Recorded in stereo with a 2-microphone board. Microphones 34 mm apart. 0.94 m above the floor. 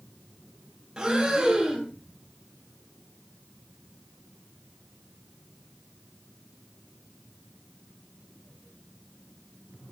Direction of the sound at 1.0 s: 25° right (ahead or behind).